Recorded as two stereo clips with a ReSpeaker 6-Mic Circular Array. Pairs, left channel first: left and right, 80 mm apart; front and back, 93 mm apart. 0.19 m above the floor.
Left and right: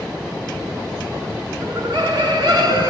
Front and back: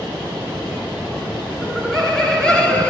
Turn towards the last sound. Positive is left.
turn(degrees=-75)